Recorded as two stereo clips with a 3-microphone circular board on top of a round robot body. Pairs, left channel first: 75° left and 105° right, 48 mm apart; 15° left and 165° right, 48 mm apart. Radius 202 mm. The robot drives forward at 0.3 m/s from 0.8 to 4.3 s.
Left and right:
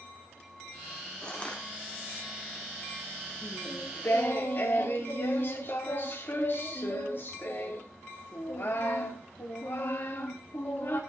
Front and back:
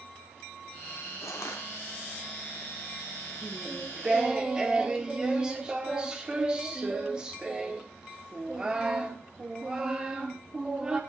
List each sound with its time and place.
1.2 s crushing: 5° left, 1.5 m
3.4 s singing: 110° left, 1.4 m; by 11.0 s 120° left, 1.6 m